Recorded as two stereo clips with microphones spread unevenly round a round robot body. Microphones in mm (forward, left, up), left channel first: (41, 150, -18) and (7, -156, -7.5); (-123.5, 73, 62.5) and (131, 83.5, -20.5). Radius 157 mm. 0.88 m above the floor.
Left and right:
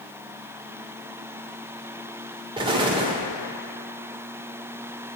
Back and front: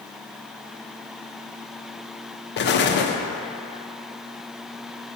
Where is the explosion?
150° right, 0.6 m.